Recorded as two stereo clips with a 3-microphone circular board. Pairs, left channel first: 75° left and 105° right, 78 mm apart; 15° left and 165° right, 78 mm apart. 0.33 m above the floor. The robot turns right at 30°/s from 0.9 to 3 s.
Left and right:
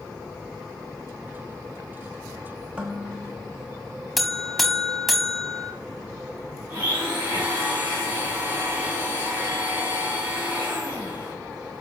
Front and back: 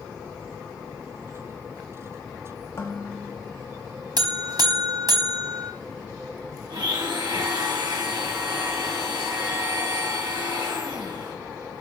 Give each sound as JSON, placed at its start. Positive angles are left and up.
{"t": 2.8, "sound": "dishes clattering", "azimuth_deg": -30, "distance_m": 1.1}
{"t": 4.2, "sound": "a buzzer", "azimuth_deg": 165, "distance_m": 0.6}
{"t": 6.7, "sound": "a blender", "azimuth_deg": -170, "distance_m": 3.0}